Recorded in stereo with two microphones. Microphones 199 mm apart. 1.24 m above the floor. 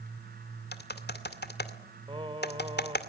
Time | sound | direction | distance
0.7 | typing on a keyboard | 55° left (ahead or behind) | 2 m
2.1 | singing | 25° right (ahead or behind) | 1.8 m